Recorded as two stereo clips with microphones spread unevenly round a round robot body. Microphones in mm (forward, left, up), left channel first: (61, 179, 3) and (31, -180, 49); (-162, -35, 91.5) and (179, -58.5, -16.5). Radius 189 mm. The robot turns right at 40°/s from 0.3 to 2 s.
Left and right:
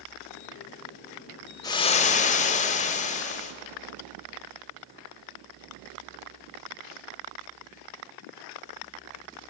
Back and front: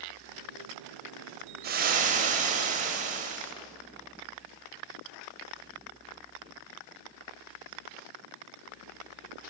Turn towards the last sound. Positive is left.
turn(degrees=30)